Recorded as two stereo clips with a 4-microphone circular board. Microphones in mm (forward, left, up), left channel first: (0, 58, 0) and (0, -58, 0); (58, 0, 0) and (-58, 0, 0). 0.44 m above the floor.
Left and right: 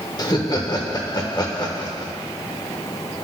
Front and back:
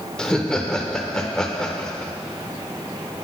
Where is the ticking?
I don't hear ticking.